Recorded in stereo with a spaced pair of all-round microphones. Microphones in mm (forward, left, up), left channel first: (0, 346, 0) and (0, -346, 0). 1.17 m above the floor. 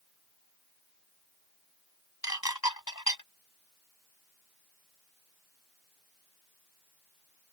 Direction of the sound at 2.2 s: 30° left (ahead or behind).